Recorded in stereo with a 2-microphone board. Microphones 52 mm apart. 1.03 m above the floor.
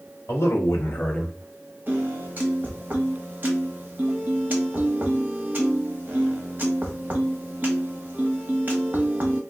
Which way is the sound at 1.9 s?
35° right (ahead or behind).